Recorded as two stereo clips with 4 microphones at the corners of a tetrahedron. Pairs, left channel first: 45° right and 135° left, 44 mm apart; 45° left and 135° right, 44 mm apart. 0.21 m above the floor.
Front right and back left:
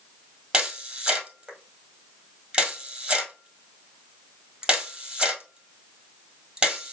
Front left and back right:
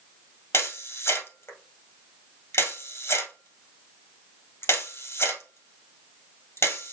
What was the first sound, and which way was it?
A camera shutter, 65° left.